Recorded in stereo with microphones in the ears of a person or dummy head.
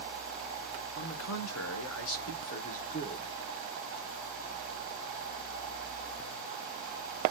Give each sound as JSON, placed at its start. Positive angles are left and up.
{"t": 0.9, "sound": "a man speaking", "side_deg": 80, "distance_m": 1.9}